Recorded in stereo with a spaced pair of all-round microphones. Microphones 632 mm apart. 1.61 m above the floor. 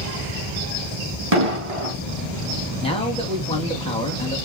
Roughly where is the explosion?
Right.